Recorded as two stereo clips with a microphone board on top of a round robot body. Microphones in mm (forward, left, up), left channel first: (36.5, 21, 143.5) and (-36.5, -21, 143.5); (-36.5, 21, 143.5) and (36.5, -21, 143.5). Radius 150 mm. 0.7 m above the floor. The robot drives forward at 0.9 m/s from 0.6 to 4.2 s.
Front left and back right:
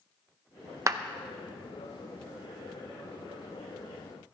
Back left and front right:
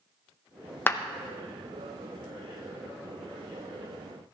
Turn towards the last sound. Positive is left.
turn(degrees=180)